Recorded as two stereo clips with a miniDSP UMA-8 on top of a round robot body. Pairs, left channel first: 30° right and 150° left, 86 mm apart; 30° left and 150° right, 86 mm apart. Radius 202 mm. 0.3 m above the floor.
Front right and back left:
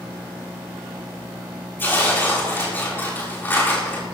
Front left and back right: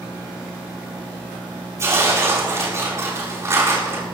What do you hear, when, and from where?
1.8 s tearing paper: 95° right, 6.5 m